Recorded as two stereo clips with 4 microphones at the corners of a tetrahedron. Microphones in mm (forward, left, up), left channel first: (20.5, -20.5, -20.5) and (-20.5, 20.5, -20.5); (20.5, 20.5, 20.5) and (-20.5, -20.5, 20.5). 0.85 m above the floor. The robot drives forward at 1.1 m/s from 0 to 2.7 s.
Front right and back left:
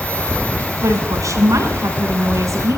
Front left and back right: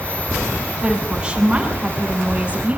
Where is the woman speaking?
150° left, 6 m; by 2.8 s 155° left, 8 m.